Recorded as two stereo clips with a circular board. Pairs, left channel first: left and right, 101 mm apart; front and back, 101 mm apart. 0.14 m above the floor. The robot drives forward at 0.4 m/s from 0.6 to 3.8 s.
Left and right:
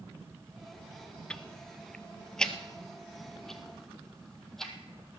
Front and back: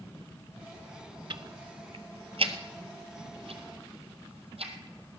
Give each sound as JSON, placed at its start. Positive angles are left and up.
{"t": 1.3, "sound": "ticking", "azimuth_deg": 165, "distance_m": 0.6}